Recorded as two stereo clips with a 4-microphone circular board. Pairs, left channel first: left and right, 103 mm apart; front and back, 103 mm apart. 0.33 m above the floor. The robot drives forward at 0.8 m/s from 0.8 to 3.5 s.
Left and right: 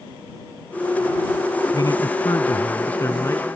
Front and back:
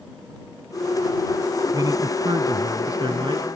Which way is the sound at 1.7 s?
135° left.